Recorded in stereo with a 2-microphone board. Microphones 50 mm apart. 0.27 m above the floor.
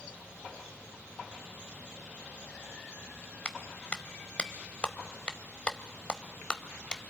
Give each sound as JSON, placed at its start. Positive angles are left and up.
{"t": 3.5, "sound": "a clap", "side_deg": 25, "distance_m": 0.9}